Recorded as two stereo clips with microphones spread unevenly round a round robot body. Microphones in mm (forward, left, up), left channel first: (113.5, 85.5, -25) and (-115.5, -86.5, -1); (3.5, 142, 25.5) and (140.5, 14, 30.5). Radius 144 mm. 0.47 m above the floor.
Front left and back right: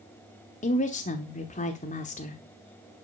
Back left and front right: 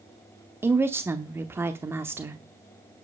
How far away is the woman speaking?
About 0.9 m.